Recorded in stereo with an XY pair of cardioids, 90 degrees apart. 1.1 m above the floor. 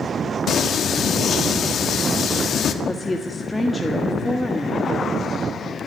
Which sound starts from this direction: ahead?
A woman speaking, at 2.8 s.